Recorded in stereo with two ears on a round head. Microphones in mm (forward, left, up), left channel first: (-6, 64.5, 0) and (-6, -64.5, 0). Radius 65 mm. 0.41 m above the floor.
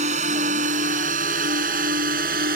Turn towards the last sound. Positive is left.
turn(degrees=-70)  # may be behind; listen again after turning